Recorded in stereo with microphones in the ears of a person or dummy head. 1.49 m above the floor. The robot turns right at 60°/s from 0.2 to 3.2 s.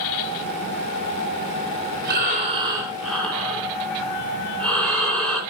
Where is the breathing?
60° right, 3 m; by 5.4 s 10° left, 3 m.